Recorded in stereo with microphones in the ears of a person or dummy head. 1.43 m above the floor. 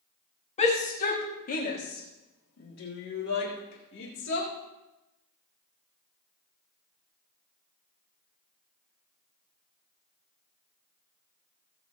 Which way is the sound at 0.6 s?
35° left (ahead or behind).